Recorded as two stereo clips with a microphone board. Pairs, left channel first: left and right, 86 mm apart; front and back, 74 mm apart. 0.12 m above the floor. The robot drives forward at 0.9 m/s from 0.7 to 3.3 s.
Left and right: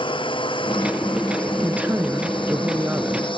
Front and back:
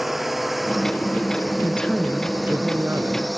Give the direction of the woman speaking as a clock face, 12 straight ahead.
2 o'clock.